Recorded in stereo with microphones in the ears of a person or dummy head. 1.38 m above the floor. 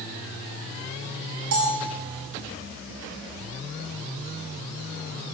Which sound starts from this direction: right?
A bell, at 1.5 s.